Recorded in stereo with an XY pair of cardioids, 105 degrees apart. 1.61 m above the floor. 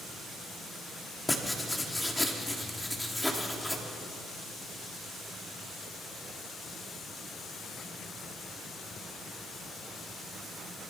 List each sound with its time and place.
1.3 s writing: 10° left, 3.5 m